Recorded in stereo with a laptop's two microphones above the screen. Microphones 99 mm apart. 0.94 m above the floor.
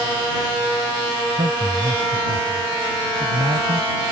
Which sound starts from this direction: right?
A man speaking, at 1.3 s.